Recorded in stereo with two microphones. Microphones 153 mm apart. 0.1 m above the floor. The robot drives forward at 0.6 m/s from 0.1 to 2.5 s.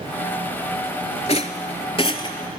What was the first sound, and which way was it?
A rattle, 45° left (ahead or behind).